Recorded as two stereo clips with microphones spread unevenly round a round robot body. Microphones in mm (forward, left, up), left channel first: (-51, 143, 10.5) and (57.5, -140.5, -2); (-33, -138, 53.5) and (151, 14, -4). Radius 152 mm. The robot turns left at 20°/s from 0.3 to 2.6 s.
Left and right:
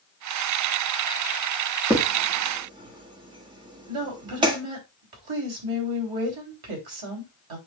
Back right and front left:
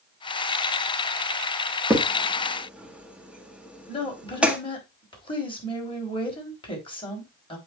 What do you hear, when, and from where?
1.9 s a crack: straight ahead, 1.3 m; by 4.6 s 15° right, 1.3 m
3.9 s a woman speaking: 70° right, 3.5 m